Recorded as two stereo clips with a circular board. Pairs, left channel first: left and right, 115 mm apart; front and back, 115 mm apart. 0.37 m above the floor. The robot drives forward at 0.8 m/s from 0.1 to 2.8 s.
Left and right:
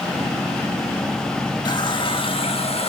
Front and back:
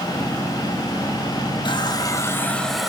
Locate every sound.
1.6 s a running tap: 40° left, 1.3 m; by 2.9 s 90° left, 1.0 m